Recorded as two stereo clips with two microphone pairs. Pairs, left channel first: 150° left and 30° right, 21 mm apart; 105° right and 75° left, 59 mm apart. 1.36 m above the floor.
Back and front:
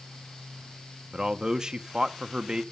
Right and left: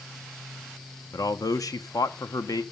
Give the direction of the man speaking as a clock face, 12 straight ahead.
3 o'clock.